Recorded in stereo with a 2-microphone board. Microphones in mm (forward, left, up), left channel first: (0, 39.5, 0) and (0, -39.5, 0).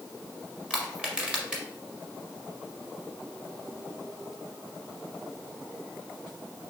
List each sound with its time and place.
0.7 s crushing: 10° right (ahead or behind), 1.2 m